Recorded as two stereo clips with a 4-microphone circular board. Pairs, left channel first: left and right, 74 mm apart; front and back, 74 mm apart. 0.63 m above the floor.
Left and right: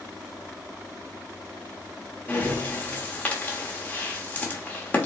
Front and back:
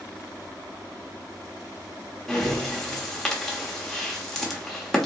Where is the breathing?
75° left, 1.1 m.